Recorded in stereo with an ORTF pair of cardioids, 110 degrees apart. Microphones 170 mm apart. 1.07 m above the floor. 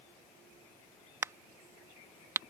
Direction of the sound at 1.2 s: 15° right.